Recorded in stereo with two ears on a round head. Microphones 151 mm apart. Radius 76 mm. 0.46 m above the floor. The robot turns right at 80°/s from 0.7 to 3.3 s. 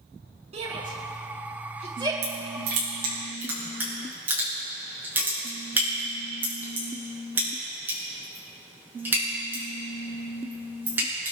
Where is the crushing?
75° right (ahead or behind), 7 m; by 11.3 s 10° right (ahead or behind), 7 m.